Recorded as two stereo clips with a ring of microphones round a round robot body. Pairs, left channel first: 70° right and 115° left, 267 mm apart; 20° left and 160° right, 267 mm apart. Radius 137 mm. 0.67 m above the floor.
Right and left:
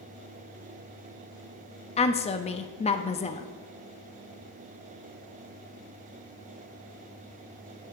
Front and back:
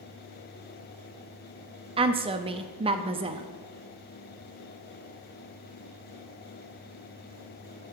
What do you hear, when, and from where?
2.0 s a woman speaking: 110° right, 0.5 m